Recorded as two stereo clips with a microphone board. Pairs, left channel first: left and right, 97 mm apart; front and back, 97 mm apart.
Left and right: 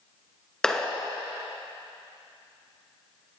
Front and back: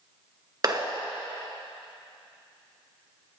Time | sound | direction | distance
0.6 | a clap | 170° left | 1.5 m